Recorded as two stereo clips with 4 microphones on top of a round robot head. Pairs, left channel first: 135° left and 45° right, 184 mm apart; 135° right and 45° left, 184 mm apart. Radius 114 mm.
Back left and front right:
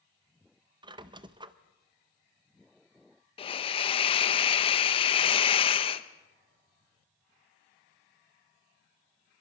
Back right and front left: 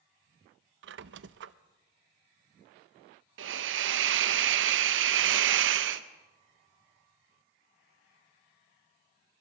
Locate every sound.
0.8 s a squeak: 20° left, 0.6 m
3.4 s a hiss: 70° left, 0.7 m